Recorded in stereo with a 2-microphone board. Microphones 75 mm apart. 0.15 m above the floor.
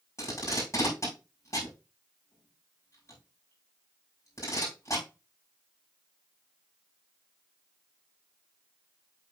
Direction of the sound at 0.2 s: 40° left (ahead or behind).